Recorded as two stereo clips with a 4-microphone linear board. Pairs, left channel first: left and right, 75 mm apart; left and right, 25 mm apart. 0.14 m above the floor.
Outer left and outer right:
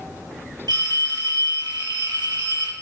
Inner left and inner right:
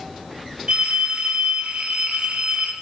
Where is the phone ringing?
65° right (ahead or behind), 2.5 m.